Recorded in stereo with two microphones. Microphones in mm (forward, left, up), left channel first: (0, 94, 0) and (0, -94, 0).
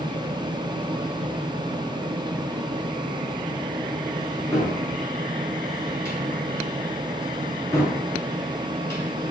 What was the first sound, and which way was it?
A cupboard door, 15° left (ahead or behind).